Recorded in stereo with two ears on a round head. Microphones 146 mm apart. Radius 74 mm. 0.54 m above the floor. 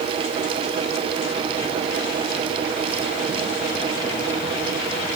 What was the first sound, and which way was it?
Only background noise.